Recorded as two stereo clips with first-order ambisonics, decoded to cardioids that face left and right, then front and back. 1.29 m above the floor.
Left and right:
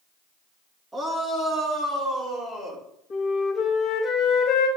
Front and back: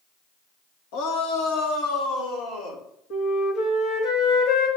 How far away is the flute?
About 1.9 m.